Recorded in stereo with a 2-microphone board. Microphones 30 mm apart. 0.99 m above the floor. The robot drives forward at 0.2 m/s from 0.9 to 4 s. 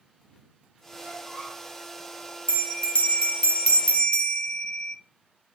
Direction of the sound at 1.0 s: 60° left (ahead or behind).